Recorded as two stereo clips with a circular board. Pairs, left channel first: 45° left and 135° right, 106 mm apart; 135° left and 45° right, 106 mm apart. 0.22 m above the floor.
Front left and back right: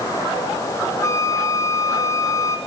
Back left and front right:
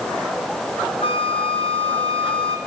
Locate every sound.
1.0 s a flute: 105° left, 2.5 m